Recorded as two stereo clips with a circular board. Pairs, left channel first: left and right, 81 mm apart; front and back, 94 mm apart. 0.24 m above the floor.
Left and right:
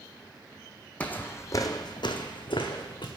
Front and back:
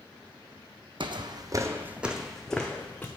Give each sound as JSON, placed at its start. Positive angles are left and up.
{"t": 1.0, "sound": "footsteps", "azimuth_deg": 160, "distance_m": 0.6}